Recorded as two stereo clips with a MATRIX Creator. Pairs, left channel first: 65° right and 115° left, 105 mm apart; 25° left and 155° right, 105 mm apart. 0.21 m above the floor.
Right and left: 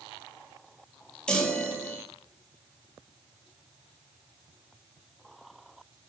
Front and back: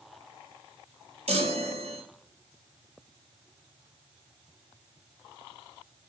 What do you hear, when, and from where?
1.3 s a chime: 150° right, 0.7 m